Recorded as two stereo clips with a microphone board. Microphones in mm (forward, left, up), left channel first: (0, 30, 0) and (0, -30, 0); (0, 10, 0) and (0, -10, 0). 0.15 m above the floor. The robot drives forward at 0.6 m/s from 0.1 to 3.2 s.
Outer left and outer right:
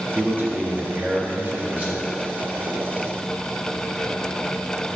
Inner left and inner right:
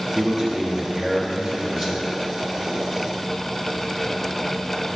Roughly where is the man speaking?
Right.